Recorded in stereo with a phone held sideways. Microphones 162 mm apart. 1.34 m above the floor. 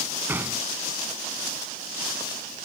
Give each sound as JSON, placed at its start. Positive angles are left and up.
{"t": 0.3, "sound": "a gunshot", "side_deg": -10}